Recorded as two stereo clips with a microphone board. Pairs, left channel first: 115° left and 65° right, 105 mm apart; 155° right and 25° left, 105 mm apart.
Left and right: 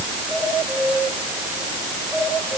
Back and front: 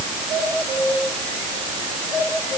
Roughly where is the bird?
No bird in this recording.